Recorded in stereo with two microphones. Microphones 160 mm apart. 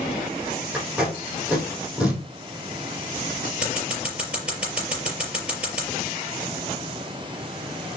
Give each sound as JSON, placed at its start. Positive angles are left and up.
{"t": 0.7, "sound": "tape being pulled", "side_deg": -5, "distance_m": 4.5}
{"t": 3.6, "sound": "scissors", "side_deg": -5, "distance_m": 5.0}